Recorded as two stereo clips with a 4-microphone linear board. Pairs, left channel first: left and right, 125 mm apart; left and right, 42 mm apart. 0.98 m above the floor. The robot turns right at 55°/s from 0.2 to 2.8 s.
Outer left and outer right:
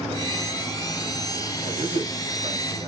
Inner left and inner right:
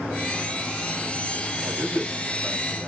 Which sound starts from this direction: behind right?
A man speaking, at 1.6 s.